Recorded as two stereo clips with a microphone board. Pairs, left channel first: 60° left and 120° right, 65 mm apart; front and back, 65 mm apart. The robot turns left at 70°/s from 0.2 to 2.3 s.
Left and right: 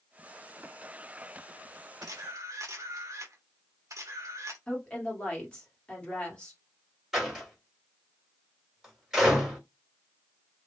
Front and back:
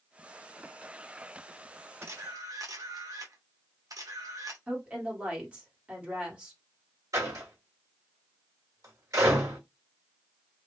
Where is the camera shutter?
135° right, 0.9 m; by 4.6 s 155° right, 0.9 m.